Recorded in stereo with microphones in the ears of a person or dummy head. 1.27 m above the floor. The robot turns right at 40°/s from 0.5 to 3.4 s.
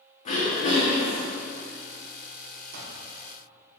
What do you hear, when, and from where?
0.2 s throat clearing: 130° left, 1.3 m; by 1.3 s 160° left, 1.3 m
2.7 s an alarm clock: 55° right (ahead or behind), 1.2 m